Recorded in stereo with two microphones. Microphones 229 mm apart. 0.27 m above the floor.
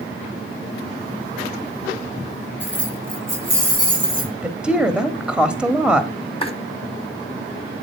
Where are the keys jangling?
5° right (ahead or behind), 6.5 m; by 4.3 s 20° right (ahead or behind), 7.5 m.